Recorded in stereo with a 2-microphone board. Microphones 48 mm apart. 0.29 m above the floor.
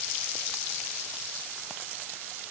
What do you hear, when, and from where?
Only background noise.